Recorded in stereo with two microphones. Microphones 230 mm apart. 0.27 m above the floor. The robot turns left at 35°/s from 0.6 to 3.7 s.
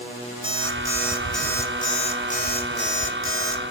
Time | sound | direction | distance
0.4 | an alarm clock | 155° right | 1.2 m